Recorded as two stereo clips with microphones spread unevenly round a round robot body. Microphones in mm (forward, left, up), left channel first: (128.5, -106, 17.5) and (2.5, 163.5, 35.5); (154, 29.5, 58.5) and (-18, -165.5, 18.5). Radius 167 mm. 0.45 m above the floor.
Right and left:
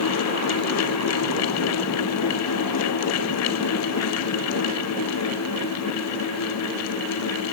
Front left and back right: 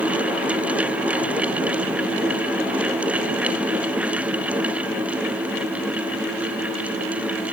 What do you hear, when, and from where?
Only background noise.